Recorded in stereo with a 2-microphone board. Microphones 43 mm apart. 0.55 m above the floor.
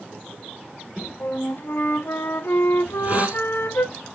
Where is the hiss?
35° right (ahead or behind), 1.6 m.